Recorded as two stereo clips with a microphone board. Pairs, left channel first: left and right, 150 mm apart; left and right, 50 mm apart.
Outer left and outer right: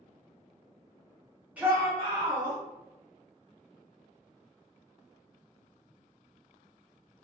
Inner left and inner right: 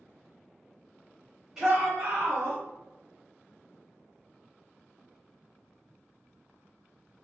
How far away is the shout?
About 1.1 m.